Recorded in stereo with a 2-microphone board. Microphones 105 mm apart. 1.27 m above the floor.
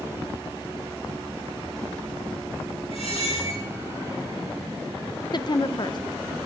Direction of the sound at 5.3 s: 45° left (ahead or behind).